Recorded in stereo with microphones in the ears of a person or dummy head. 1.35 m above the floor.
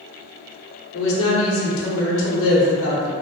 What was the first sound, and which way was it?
A woman speaking, 70° left (ahead or behind).